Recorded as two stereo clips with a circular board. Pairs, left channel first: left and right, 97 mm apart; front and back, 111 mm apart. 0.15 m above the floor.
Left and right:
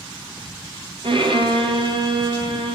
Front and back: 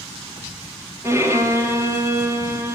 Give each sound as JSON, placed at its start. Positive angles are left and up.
{"t": 1.0, "sound": "a violin", "azimuth_deg": -115, "distance_m": 2.5}